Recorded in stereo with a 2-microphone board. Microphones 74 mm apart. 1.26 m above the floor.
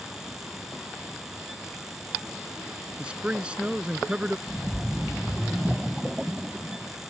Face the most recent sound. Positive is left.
turn(degrees=-10)  # may be behind; listen again after turning